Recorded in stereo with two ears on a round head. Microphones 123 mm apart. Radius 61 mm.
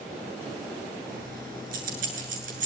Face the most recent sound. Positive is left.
turn(degrees=-65)  # may be behind; listen again after turning